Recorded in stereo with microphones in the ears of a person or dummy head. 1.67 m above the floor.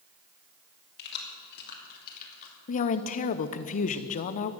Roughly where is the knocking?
I don't hear knocking.